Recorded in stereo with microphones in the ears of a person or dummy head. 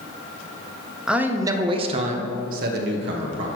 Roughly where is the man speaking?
Centre.